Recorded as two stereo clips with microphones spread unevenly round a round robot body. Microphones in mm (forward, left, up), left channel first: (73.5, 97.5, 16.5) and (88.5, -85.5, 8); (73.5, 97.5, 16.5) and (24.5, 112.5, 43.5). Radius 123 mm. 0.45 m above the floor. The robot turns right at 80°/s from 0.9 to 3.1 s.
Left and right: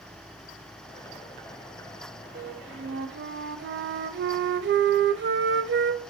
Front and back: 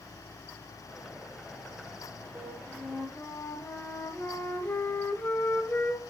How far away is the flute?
About 1.3 m.